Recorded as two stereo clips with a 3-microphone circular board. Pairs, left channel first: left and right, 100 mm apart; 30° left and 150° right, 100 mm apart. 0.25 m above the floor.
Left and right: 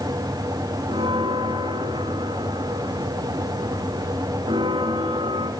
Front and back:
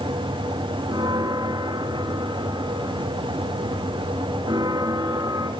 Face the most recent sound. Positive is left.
turn(degrees=-105)